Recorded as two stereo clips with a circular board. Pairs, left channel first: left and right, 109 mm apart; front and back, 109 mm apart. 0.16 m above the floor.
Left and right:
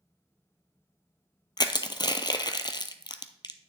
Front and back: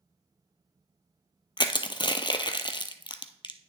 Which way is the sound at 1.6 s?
45° left.